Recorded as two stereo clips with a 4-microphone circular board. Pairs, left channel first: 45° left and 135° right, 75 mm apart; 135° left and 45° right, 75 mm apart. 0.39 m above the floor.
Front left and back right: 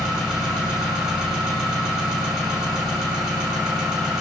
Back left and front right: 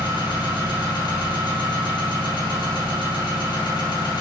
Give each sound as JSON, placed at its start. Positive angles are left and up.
{"t": 0.0, "sound": "an engine running", "azimuth_deg": 140, "distance_m": 1.8}